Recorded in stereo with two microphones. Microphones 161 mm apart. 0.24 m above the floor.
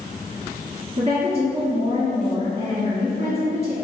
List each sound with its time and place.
1.0 s a woman speaking: 40° right (ahead or behind), 1.6 m